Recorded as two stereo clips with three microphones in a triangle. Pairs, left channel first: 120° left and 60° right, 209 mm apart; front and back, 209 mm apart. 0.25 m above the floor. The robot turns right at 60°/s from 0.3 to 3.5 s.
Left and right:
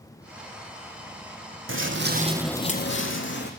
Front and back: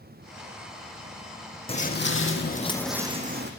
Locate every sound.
1.7 s footsteps: 65° right, 0.9 m; by 3.5 s 155° left, 1.0 m